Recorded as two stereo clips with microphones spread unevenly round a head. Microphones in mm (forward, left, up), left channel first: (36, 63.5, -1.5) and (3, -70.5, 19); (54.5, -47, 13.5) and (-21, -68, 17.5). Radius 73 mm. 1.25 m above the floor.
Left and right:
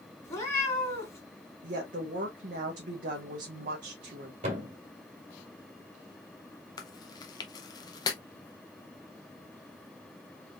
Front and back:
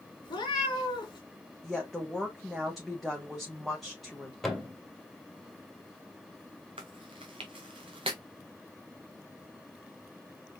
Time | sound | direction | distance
0.2 | a cat meowing | straight ahead | 2 m
1.6 | a woman speaking | 75° right | 1.1 m
4.4 | a thud | 75° right | 2 m
6.8 | chewing | 145° left | 0.7 m